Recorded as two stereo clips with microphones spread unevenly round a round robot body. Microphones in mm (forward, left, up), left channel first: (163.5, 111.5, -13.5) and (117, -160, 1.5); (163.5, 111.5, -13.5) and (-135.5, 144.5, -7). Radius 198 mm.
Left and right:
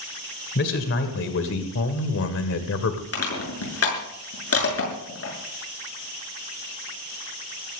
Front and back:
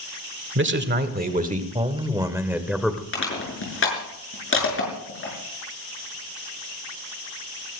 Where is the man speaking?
130° left, 1.9 m; by 3.0 s 80° left, 1.9 m.